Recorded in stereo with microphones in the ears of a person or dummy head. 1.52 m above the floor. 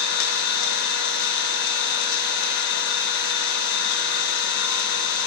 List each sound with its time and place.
0.0 s an engine running: 70° left (ahead or behind), 1.8 m